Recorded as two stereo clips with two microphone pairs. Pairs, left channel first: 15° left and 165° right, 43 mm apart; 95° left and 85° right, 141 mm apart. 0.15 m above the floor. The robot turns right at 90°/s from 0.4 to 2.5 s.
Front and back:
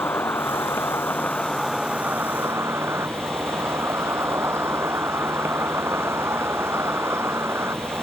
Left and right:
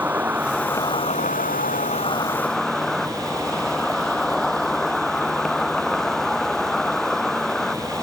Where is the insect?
5° right; by 8.0 s 175° right.